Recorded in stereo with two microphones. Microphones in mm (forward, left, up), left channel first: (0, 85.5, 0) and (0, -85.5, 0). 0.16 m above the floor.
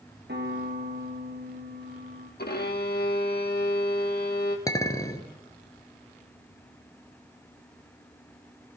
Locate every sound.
0.3 s a piano: 70° right (ahead or behind), 3 m
2.4 s a violin: 60° left (ahead or behind), 1.5 m
4.7 s a clink: 20° left (ahead or behind), 1.4 m